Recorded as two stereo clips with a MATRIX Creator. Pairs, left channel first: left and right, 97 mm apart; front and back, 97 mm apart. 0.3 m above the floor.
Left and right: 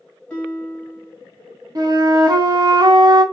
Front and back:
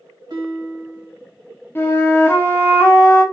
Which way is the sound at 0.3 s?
165° left.